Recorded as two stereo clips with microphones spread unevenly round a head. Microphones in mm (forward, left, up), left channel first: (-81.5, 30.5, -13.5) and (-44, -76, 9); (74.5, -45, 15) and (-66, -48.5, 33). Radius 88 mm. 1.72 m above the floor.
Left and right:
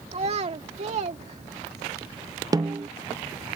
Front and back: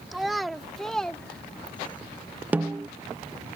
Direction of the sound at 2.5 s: 110° right.